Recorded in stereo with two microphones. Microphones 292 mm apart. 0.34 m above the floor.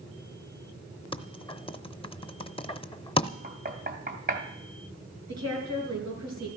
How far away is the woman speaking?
About 5.5 m.